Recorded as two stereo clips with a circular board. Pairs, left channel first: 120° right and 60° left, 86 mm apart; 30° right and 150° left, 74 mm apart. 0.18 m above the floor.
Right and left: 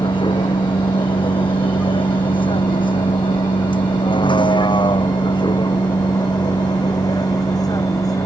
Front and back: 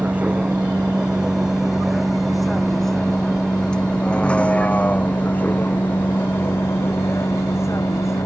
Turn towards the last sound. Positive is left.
turn(degrees=-75)